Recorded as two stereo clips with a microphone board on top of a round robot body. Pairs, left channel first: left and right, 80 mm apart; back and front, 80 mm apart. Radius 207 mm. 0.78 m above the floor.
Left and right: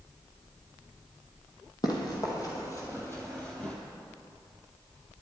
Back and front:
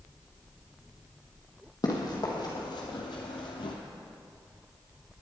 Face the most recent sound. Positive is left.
turn(degrees=170)